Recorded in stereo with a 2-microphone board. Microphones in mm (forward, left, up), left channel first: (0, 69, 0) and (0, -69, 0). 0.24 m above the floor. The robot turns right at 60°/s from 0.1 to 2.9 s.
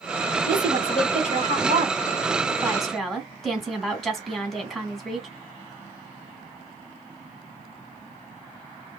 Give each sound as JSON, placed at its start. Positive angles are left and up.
{"t": 0.5, "sound": "a woman speaking", "azimuth_deg": -145, "distance_m": 2.0}